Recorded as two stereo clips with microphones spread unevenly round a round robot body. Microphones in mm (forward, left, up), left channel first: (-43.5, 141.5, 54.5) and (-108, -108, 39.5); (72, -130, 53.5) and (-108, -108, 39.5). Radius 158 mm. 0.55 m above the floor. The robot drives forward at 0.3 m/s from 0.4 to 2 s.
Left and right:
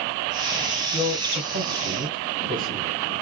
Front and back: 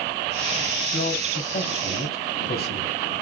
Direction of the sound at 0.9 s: 25° right.